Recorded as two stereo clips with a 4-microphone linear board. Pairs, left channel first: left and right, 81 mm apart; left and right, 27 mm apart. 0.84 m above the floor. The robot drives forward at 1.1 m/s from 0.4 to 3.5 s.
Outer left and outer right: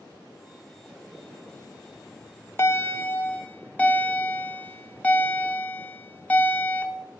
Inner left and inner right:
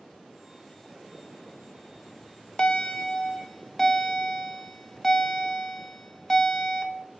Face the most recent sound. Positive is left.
turn(degrees=20)  # may be behind; listen again after turning